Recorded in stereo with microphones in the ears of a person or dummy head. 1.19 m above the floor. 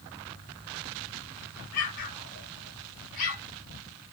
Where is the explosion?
50° left (ahead or behind), 1.1 m.